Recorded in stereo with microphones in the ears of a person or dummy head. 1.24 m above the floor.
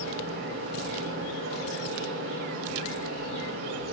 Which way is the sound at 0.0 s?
70° right (ahead or behind).